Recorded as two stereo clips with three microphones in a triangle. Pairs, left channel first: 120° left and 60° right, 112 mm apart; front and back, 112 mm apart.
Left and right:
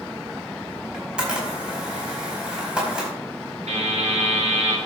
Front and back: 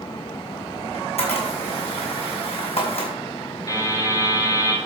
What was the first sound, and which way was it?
A camera shutter, 20° left.